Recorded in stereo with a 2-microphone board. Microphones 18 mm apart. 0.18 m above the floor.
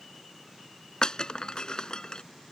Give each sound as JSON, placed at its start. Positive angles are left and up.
{"t": 1.0, "sound": "breaking glass", "side_deg": 45}